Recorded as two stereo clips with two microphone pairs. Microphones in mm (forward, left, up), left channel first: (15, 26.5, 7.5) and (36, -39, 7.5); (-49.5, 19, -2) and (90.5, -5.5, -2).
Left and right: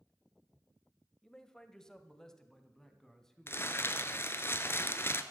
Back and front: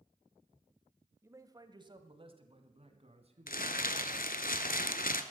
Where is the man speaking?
40° left, 1.0 m; by 4.1 s 25° left, 2.5 m.